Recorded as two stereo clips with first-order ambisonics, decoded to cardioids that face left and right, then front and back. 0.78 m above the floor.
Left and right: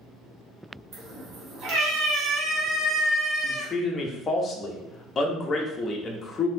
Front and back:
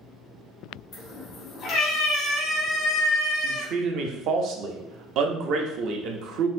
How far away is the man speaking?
About 0.7 m.